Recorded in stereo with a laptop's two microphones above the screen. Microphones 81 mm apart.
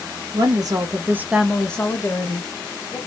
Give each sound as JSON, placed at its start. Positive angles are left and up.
{"t": 0.3, "sound": "a woman speaking", "side_deg": -55, "distance_m": 0.8}